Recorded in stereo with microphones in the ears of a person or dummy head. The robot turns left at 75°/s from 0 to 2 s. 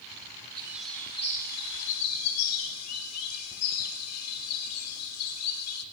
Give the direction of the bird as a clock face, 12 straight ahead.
5 o'clock.